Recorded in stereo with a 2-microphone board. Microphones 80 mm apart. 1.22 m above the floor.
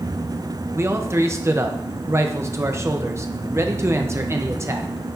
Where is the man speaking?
35° right (ahead or behind), 0.8 m.